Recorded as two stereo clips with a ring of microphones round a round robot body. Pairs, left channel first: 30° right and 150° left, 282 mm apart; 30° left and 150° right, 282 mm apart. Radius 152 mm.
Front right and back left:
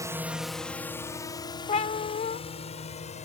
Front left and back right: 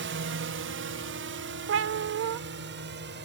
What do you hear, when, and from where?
0.0 s a drone: 135° right; by 3.2 s 95° right
1.7 s a cat meowing: 100° right